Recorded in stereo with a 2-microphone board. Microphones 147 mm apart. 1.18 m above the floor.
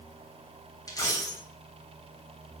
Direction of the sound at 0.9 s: 25° left (ahead or behind).